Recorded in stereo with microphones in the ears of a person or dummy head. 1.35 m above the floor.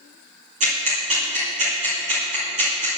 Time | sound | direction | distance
0.6 | ticking | 40° right (ahead or behind) | 2.5 m